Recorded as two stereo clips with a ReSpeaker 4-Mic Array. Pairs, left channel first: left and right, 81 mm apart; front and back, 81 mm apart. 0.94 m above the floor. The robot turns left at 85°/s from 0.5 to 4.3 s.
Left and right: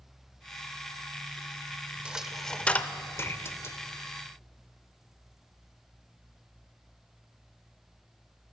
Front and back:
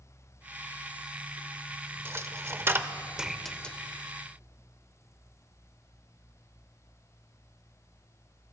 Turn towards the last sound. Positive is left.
turn(degrees=15)